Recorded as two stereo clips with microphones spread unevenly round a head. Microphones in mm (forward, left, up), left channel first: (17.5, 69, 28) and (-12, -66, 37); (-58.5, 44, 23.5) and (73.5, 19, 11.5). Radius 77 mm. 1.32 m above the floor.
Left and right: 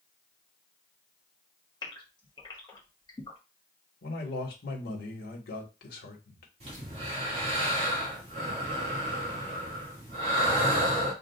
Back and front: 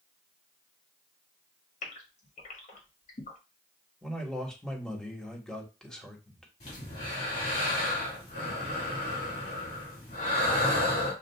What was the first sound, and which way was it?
A gasp, 145° left.